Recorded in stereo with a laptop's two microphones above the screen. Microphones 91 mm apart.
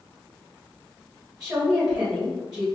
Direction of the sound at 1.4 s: 5° right (ahead or behind).